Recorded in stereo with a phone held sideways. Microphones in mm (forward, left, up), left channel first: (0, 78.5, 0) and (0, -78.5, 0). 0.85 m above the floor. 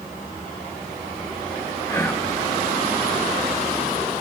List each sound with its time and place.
1.9 s whispering: 15° left (ahead or behind), 0.7 m